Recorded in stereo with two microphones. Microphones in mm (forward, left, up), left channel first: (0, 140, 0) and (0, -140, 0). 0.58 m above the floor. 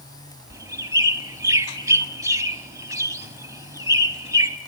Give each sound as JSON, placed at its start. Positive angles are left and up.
{"t": 0.5, "sound": "a bird", "side_deg": -10, "distance_m": 1.1}